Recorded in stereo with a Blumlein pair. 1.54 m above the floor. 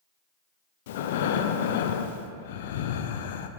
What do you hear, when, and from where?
0.9 s breathing: 55° left, 0.6 m